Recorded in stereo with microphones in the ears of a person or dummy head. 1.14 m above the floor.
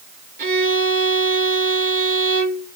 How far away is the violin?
About 1.2 m.